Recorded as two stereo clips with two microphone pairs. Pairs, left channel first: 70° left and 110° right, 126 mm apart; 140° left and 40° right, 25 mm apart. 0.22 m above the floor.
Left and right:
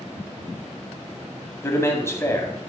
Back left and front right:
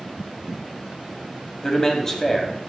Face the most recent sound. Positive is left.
turn(degrees=105)